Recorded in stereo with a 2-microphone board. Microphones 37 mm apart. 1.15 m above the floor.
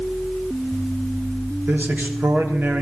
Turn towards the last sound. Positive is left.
turn(degrees=-65)  # may be behind; listen again after turning